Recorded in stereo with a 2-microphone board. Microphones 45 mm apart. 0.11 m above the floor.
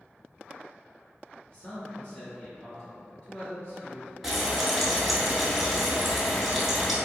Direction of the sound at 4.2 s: 5° right (ahead or behind).